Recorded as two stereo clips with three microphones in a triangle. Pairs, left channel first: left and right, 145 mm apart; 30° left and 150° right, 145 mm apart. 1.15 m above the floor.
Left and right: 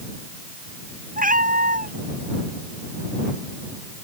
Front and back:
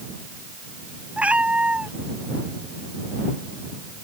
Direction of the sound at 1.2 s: 70° right.